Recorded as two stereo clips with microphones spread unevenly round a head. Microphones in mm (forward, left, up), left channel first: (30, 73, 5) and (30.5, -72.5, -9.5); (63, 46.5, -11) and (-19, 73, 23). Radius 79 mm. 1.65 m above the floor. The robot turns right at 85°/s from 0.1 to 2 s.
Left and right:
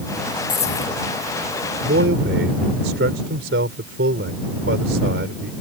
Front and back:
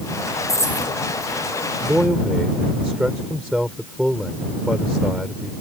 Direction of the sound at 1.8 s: 130° right.